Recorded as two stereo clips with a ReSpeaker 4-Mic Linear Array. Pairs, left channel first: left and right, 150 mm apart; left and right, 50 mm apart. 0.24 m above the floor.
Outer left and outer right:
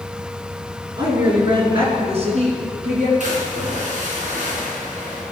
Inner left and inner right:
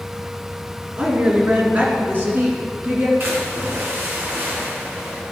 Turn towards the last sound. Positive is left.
turn(degrees=-55)  # may be behind; listen again after turning